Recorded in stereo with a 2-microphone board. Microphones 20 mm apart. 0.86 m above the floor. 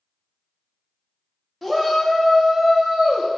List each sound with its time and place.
1.6 s a shout: centre (ahead or behind), 1.9 m; by 3.3 s 65° right (ahead or behind), 1.5 m